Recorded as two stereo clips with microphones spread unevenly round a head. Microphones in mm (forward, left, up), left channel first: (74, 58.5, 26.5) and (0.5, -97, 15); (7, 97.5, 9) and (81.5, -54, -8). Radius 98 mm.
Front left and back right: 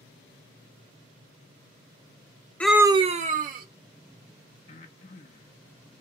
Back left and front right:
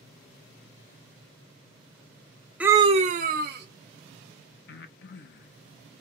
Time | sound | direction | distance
2.6 | a scream | 15° right | 0.5 m
4.7 | breathing | 120° left | 0.6 m